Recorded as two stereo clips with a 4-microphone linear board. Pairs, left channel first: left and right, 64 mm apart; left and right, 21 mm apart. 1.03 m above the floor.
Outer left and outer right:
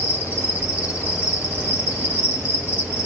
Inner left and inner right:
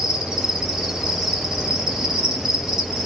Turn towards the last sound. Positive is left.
turn(degrees=-25)  # may be behind; listen again after turning